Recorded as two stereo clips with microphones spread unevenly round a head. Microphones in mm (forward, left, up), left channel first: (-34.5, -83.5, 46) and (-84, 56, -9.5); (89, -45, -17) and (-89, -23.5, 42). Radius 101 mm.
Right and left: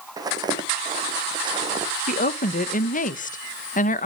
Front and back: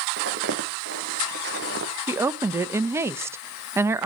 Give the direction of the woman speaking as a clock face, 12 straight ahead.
4 o'clock.